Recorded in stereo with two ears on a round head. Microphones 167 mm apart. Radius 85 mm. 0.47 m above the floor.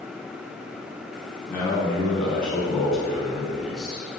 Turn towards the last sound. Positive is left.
turn(degrees=0)  # may be behind; listen again after turning